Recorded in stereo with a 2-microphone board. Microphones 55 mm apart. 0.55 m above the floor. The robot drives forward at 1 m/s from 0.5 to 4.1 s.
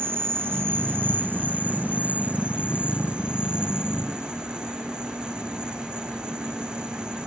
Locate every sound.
0.0 s an insect: 45° right (ahead or behind); by 7.3 s 15° right (ahead or behind)